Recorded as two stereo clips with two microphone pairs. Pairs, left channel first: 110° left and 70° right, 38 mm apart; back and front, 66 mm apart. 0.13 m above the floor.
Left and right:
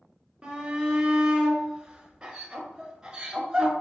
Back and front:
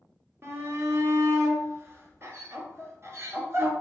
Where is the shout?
5° right, 1.4 m.